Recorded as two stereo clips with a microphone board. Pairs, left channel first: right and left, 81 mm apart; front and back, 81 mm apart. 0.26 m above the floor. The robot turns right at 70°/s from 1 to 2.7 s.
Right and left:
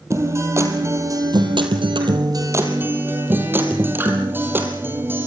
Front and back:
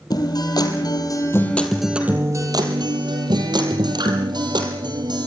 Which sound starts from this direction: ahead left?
A guitar, at 0.1 s.